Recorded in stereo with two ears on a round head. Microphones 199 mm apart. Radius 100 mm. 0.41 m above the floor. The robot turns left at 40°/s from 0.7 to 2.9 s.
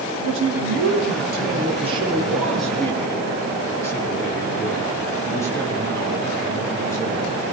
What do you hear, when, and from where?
0.2 s a man speaking: 105° right, 7 m; by 7.4 s 165° left, 7 m